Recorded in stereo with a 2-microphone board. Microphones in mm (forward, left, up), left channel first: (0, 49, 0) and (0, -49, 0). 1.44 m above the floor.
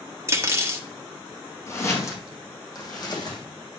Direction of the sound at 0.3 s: 30° right (ahead or behind).